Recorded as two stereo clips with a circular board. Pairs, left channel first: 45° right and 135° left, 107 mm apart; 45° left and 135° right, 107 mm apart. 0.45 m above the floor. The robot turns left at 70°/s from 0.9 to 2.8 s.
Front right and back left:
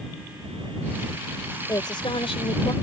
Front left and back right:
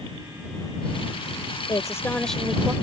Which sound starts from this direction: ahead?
A woman speaking, at 1.7 s.